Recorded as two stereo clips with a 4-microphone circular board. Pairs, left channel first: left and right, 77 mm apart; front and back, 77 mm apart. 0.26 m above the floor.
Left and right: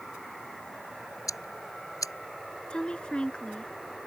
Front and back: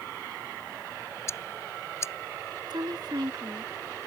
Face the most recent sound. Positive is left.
turn(degrees=165)